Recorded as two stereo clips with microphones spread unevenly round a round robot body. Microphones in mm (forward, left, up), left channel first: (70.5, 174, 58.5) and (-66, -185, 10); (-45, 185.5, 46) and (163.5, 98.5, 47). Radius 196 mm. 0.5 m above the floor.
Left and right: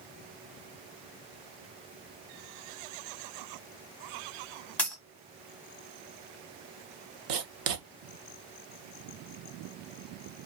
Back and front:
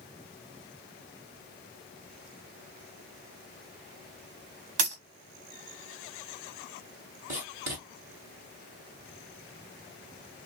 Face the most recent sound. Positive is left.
turn(degrees=-70)